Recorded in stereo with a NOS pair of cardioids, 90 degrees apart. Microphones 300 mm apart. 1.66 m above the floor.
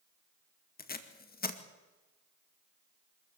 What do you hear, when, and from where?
0.8 s tape being pulled: 30° left, 2 m